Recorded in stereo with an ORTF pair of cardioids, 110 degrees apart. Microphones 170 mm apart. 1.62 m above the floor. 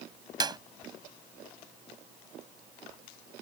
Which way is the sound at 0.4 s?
25° right.